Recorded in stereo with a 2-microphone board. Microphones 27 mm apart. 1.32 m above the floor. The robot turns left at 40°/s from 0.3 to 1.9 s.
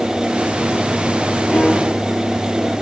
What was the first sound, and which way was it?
A piano, 60° left (ahead or behind).